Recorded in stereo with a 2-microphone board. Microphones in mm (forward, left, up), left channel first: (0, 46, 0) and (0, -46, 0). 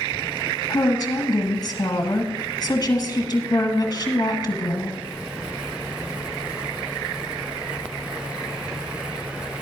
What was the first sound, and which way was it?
A woman speaking, 35° left (ahead or behind).